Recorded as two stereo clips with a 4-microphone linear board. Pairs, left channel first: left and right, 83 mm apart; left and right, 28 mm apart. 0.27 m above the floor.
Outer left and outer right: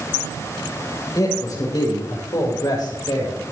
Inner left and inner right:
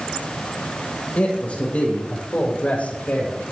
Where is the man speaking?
45° left (ahead or behind), 9 m; by 3.4 s 60° left (ahead or behind), 9.5 m.